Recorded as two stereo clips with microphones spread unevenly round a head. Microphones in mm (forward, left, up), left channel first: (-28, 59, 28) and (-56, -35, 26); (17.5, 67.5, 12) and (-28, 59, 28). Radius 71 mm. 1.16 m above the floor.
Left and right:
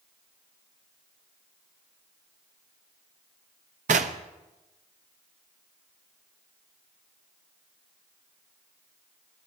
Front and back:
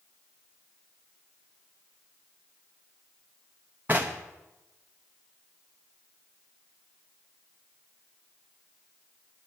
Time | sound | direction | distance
3.9 | knocking | 95° right | 0.6 m